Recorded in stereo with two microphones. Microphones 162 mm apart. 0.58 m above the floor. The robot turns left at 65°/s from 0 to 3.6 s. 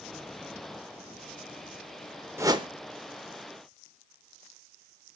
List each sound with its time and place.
2.4 s a whoosh: 15° right (ahead or behind), 0.5 m; by 2.7 s 35° right (ahead or behind), 0.5 m